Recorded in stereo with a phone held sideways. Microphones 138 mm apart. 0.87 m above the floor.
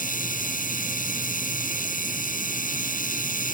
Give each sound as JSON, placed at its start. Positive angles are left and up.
{"t": 0.0, "sound": "a machine running", "side_deg": 90}